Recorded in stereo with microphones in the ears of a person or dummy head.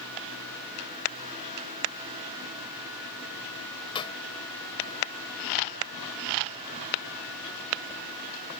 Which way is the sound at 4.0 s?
30° left (ahead or behind).